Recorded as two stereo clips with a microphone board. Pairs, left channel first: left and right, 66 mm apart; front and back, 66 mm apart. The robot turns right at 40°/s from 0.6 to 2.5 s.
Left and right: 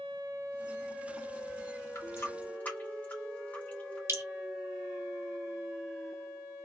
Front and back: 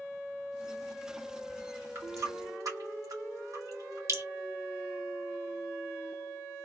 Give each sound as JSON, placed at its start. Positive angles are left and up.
{"t": 1.9, "sound": "a running tap", "azimuth_deg": 130, "distance_m": 1.6}
{"t": 4.1, "sound": "dripping", "azimuth_deg": -135, "distance_m": 1.0}